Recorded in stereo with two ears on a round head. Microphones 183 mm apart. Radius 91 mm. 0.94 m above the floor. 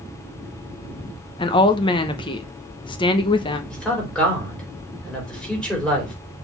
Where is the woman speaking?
25° left (ahead or behind), 0.8 m.